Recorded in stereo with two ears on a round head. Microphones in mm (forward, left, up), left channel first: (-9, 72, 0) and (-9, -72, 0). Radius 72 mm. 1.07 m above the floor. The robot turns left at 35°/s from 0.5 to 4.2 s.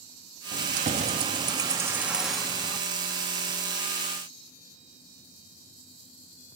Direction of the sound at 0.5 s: 115° right.